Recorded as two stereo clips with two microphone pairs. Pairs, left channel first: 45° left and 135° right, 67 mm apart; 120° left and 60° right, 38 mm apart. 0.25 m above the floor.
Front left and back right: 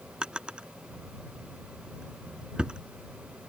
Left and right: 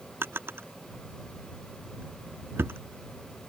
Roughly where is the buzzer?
No buzzer in this recording.